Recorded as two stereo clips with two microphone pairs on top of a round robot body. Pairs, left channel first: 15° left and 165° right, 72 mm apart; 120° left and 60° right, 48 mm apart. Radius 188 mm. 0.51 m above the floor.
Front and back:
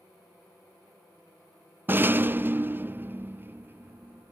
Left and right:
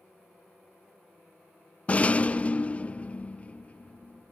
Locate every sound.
1.9 s a rattle: 165° left, 0.6 m